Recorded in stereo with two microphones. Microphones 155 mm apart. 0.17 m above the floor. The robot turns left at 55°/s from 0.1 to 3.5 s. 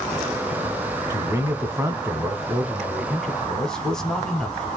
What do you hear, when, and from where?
1.1 s a man speaking: 20° right (ahead or behind), 1.0 m; by 4.7 s 5° left (ahead or behind), 1.0 m